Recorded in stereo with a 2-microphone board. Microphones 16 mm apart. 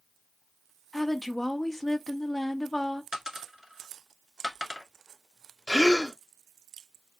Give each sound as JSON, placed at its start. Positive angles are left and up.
{"t": 0.9, "sound": "a woman speaking", "side_deg": 20, "distance_m": 0.6}
{"t": 3.1, "sound": "a dropped coin", "side_deg": -50, "distance_m": 0.8}
{"t": 5.7, "sound": "a gasp", "side_deg": 55, "distance_m": 0.8}